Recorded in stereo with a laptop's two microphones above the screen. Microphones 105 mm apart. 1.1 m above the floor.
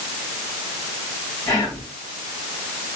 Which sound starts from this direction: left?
Whispering, at 1.5 s.